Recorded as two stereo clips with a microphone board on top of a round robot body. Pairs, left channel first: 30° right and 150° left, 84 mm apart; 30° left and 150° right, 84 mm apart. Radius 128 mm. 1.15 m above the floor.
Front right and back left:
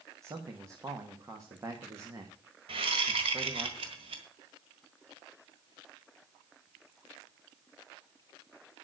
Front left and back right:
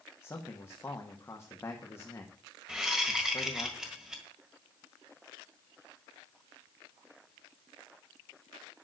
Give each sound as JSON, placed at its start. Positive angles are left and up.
{"t": 0.2, "sound": "a man speaking", "azimuth_deg": 90, "distance_m": 1.7}
{"t": 2.7, "sound": "a whoosh", "azimuth_deg": 125, "distance_m": 1.5}